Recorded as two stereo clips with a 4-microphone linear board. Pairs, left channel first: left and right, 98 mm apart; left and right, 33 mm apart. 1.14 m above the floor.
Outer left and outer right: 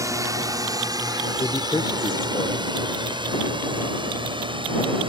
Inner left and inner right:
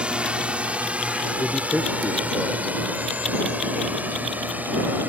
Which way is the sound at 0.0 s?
35° right (ahead or behind).